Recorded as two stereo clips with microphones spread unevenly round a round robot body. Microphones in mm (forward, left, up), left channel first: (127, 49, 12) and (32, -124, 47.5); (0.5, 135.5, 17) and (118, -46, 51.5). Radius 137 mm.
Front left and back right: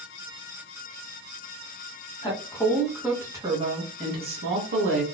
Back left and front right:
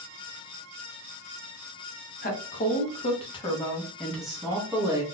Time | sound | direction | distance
2.2 | a woman speaking | 110° left | 1.1 m